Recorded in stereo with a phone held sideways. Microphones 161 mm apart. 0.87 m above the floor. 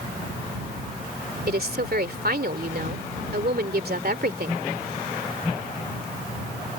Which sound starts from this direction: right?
A woman speaking, at 1.5 s.